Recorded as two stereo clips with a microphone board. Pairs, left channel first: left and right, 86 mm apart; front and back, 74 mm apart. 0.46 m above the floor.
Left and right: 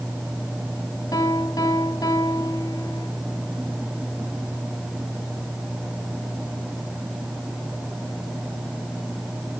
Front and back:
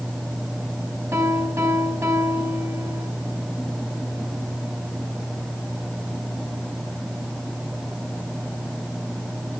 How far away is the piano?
About 4 m.